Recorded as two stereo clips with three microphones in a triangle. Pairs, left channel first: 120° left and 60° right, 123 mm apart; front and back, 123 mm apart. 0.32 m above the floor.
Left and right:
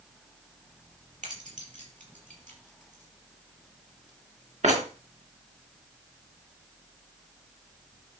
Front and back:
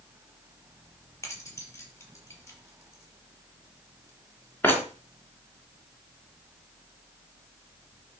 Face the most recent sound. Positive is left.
turn(degrees=-75)